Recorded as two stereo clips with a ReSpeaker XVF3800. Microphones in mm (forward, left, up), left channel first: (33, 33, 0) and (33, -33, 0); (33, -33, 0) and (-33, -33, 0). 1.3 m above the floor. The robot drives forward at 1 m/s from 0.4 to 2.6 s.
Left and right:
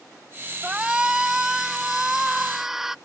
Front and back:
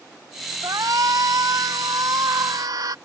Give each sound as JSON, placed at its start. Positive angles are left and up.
{"t": 0.6, "sound": "a shout", "azimuth_deg": -165}